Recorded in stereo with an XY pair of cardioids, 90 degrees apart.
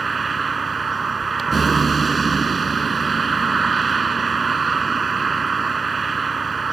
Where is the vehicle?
35° right.